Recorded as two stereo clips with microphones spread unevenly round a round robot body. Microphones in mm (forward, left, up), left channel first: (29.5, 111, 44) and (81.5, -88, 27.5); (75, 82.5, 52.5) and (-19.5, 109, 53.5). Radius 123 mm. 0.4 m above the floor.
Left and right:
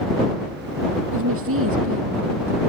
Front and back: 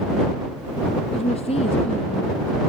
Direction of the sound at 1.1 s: 60° right.